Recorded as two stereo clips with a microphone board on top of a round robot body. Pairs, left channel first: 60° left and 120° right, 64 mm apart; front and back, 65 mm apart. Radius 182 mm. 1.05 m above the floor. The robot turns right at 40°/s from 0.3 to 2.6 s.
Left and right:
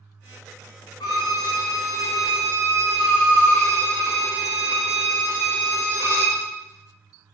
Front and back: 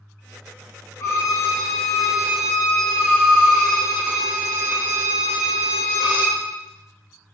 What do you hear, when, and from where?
1.0 s a violin: 50° left, 0.6 m; by 6.4 s 115° left, 0.6 m